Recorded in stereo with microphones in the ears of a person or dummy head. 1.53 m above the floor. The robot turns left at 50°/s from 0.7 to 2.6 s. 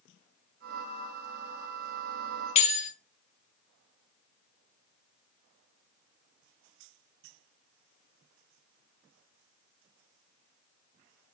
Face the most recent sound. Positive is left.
turn(degrees=30)  # may be behind; listen again after turning